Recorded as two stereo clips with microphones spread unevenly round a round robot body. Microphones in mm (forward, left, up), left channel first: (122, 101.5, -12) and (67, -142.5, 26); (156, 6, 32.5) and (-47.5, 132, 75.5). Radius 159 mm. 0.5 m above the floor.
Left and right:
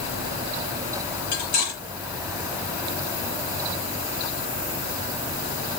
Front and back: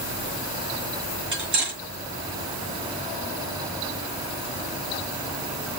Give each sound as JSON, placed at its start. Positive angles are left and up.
{"t": 1.3, "sound": "cutlery clinking", "azimuth_deg": 110, "distance_m": 5.0}